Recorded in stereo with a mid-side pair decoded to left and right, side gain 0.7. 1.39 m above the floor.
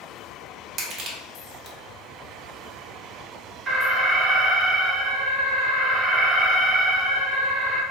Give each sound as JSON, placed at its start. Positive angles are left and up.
{"t": 0.8, "sound": "crushing", "azimuth_deg": -45, "distance_m": 1.0}
{"t": 3.7, "sound": "an alarm", "azimuth_deg": -35, "distance_m": 1.1}